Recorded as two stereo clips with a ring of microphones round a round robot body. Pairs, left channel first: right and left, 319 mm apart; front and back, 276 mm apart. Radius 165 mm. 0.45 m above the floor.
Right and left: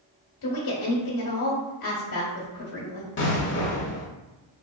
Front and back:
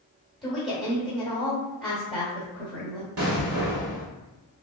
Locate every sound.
0.4 s a woman speaking: 90° right, 1.5 m
3.2 s an explosion: 145° right, 1.1 m